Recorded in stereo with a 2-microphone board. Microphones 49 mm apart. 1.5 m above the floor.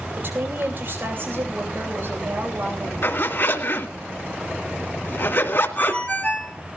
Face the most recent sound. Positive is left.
turn(degrees=30)  # may be behind; listen again after turning